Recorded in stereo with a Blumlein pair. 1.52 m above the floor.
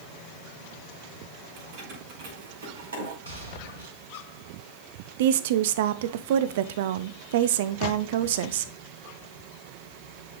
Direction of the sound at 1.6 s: 45° right.